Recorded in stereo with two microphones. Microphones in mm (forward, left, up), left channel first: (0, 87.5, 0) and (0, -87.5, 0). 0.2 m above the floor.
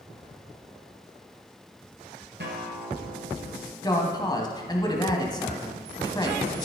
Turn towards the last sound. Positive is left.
turn(degrees=25)  # may be behind; listen again after turning